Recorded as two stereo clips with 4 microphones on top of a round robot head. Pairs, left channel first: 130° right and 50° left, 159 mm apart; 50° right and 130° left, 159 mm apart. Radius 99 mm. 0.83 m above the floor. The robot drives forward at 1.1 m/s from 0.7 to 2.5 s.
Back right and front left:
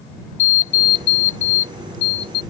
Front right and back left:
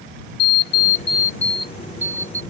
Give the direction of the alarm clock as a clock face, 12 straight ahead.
3 o'clock.